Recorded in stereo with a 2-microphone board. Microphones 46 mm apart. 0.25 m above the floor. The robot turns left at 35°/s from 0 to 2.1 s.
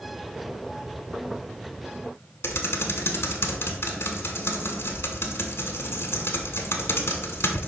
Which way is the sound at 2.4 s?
65° left (ahead or behind).